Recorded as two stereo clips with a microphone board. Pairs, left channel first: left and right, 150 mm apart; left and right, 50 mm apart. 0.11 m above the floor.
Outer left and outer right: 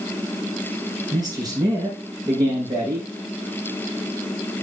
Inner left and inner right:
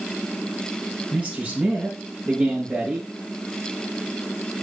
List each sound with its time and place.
1.1 s a man speaking: 30° right (ahead or behind), 5 m